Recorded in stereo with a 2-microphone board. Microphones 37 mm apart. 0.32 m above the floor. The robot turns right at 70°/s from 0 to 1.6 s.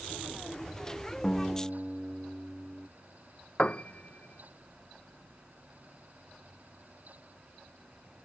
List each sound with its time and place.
1.2 s a guitar: 15° left (ahead or behind); by 2.9 s 10° right (ahead or behind)
3.6 s a piano: 30° left (ahead or behind)